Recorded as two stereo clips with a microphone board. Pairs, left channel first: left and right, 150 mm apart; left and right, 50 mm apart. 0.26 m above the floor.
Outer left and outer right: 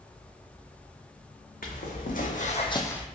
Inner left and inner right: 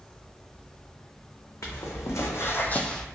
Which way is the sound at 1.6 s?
70° left (ahead or behind).